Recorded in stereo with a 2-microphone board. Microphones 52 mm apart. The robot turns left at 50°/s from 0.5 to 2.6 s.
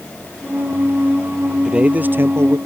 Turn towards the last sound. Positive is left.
turn(degrees=-65)